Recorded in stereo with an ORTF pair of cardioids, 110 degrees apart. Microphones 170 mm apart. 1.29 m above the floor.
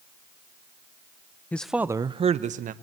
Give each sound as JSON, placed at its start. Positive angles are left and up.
{"t": 1.5, "sound": "a man speaking", "azimuth_deg": 10, "distance_m": 0.8}